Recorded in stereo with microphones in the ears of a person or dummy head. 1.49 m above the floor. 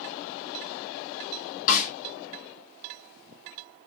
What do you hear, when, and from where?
1.7 s a snare drum: 50° left (ahead or behind), 1.6 m